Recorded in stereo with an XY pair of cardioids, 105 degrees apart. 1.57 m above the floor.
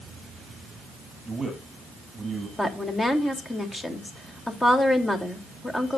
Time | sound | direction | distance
1.2 | a man speaking | 25° right | 7 m
2.6 | a woman speaking | 15° left | 3 m